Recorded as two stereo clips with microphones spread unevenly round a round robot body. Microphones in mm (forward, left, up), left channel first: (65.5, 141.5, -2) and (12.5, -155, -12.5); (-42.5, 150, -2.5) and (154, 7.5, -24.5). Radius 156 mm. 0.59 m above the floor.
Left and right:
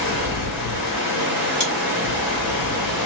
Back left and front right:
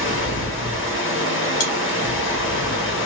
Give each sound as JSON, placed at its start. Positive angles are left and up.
{"t": 0.0, "sound": "running water", "azimuth_deg": 110, "distance_m": 1.5}
{"t": 1.6, "sound": "chewing", "azimuth_deg": 130, "distance_m": 1.8}